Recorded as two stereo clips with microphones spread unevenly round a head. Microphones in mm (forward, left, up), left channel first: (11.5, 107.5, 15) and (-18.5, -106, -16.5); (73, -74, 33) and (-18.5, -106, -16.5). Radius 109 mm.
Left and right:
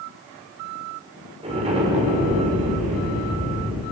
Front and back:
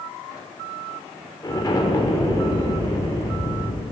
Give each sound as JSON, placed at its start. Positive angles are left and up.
{"t": 1.4, "sound": "an explosion", "azimuth_deg": -30, "distance_m": 6.0}